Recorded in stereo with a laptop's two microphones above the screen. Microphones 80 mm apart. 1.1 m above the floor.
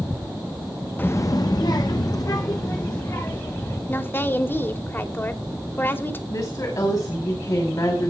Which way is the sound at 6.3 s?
50° left (ahead or behind).